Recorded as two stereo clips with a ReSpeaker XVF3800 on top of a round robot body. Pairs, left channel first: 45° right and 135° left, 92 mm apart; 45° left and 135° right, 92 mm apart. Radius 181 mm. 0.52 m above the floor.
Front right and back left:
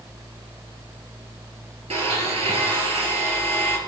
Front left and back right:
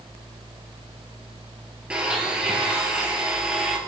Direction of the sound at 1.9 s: 145° left.